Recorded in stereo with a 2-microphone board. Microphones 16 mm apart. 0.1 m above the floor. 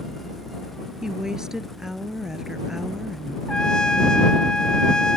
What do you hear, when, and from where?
1.0 s a woman speaking: 40° right (ahead or behind)
3.5 s a trumpet: 45° left (ahead or behind)